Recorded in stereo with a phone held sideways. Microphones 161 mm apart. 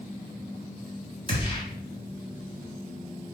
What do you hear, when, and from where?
1.3 s a gunshot: 35° left (ahead or behind), 2 m